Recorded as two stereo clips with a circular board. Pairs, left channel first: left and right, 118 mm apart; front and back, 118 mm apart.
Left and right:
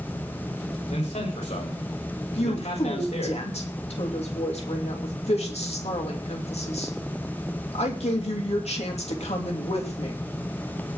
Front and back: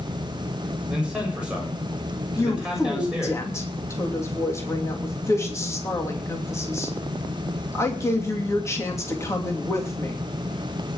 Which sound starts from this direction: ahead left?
A woman speaking, at 2.4 s.